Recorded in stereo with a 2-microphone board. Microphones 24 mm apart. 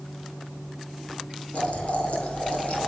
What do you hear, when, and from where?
1.5 s boiling: 65° left (ahead or behind), 4.5 m